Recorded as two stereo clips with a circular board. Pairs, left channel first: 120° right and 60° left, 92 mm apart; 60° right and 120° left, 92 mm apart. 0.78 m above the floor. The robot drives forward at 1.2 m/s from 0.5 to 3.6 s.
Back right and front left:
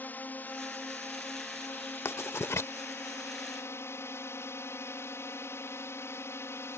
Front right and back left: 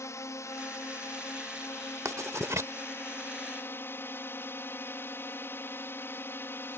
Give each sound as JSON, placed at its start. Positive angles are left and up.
{"t": 0.0, "sound": "a drone", "azimuth_deg": -70}
{"t": 2.0, "sound": "writing", "azimuth_deg": 175}